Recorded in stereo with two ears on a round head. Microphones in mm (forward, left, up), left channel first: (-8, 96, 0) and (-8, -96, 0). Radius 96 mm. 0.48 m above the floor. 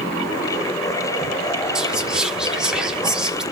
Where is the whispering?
5° right (ahead or behind), 0.9 m.